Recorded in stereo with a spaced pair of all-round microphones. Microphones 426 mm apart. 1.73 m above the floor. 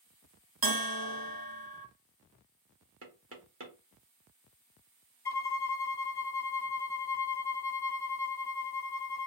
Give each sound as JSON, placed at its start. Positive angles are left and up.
{"t": 0.6, "sound": "a bell", "side_deg": -55, "distance_m": 1.0}
{"t": 3.0, "sound": "knocking", "side_deg": -30, "distance_m": 1.1}
{"t": 5.2, "sound": "a violin", "side_deg": 60, "distance_m": 0.6}